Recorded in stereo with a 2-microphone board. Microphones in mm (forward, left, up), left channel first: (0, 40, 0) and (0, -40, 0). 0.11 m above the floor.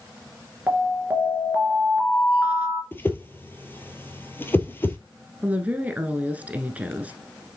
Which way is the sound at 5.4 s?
20° right (ahead or behind).